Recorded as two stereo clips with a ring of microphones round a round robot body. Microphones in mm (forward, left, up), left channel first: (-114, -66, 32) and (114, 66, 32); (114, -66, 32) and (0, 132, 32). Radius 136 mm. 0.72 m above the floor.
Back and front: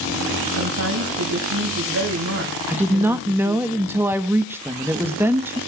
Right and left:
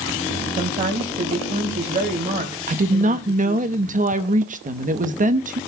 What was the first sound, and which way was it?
A woman speaking, 65° left.